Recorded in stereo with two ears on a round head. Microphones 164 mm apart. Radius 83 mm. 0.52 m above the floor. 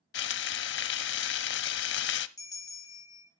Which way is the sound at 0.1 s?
65° left (ahead or behind).